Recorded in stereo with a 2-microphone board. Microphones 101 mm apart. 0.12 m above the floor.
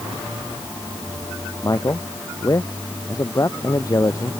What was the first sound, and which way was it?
A man speaking, 35° left (ahead or behind).